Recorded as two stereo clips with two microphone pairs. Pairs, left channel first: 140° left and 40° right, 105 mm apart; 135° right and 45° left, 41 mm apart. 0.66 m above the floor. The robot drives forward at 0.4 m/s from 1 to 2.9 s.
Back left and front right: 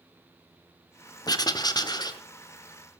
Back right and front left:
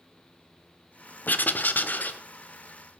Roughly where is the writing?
Behind.